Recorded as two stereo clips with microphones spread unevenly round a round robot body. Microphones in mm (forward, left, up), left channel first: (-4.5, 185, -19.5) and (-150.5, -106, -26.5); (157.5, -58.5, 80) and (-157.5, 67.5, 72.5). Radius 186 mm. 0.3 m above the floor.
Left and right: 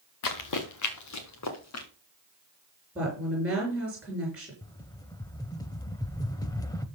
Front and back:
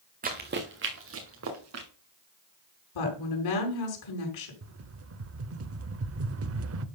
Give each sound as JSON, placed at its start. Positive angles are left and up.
{"t": 0.2, "sound": "running footsteps", "azimuth_deg": 90, "distance_m": 2.0}
{"t": 3.0, "sound": "a woman speaking", "azimuth_deg": -30, "distance_m": 4.5}
{"t": 4.6, "sound": "a rattle", "azimuth_deg": 140, "distance_m": 0.8}